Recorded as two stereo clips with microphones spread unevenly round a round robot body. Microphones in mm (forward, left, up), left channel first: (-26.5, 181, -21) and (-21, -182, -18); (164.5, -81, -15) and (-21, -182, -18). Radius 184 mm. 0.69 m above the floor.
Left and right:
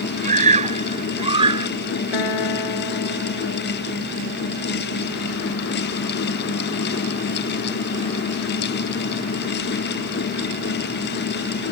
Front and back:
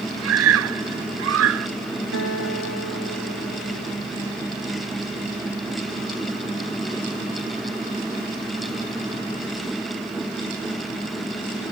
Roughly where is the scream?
Behind.